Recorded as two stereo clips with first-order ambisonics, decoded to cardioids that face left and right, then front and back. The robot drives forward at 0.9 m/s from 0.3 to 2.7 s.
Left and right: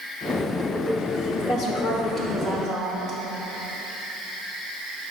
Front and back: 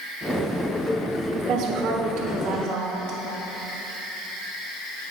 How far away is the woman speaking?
About 0.9 m.